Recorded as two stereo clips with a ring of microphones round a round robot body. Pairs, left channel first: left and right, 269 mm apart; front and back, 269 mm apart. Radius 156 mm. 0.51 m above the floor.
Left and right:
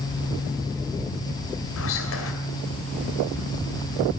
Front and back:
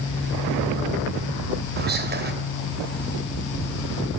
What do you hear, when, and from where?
1.8 s whispering: 130° left, 2.5 m